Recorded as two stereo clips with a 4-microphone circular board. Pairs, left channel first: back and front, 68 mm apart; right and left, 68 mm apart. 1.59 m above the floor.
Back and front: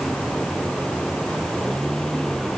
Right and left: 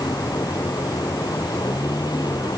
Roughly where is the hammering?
I don't hear hammering.